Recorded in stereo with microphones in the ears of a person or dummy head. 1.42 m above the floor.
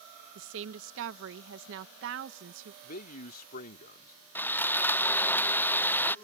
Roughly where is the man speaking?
Left.